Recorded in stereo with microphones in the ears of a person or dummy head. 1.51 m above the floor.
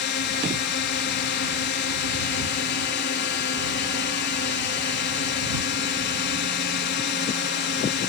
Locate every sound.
0.0 s a drone: 50° left (ahead or behind)